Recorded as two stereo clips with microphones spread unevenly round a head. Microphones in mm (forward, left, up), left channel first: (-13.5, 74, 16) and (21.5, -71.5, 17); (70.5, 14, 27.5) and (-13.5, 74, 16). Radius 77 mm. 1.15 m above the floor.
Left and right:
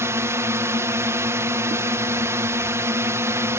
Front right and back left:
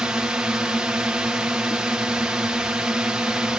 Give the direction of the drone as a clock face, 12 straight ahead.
5 o'clock.